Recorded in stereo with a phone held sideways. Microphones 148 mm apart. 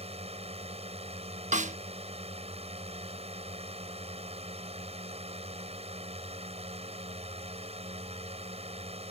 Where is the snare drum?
55° right (ahead or behind).